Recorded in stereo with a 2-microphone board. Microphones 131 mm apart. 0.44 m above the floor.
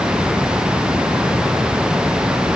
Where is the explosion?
No explosion in this recording.